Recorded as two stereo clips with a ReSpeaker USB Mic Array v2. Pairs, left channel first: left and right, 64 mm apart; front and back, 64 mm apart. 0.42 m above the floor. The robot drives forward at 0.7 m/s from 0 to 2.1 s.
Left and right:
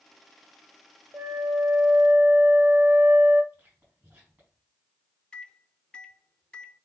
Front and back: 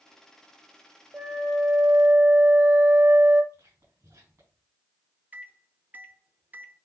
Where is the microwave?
150° left, 0.6 m.